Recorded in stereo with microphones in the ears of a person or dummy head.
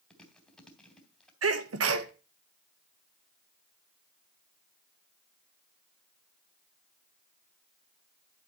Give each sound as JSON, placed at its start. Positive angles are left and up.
{"t": 0.1, "sound": "chewing", "side_deg": 5, "distance_m": 2.5}
{"t": 1.4, "sound": "a sneeze", "side_deg": -75, "distance_m": 1.1}